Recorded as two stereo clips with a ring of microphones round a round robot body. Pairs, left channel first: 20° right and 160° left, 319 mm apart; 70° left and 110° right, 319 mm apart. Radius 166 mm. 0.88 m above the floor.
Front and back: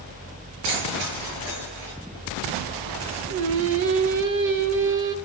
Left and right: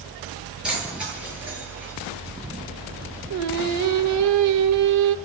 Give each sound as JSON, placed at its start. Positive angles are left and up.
{"t": 0.6, "sound": "keys jangling", "azimuth_deg": 160, "distance_m": 10.0}
{"t": 3.3, "sound": "singing", "azimuth_deg": -150, "distance_m": 1.1}